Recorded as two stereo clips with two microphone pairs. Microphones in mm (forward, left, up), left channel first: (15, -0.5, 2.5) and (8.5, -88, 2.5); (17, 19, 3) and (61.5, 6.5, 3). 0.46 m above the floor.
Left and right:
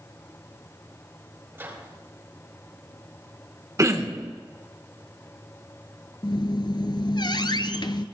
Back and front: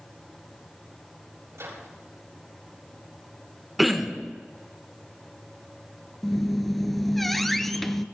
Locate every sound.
1.5 s a microwave: 30° right, 7 m
3.8 s throat clearing: 100° right, 1.1 m
6.2 s a squeak: 75° left, 0.6 m